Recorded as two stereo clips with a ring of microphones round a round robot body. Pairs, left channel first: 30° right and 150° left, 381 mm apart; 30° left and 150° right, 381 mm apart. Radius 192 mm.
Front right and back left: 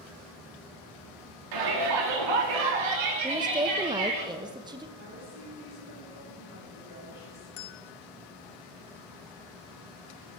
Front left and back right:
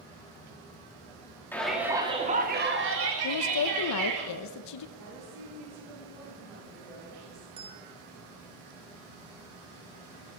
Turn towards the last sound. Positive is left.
turn(degrees=-75)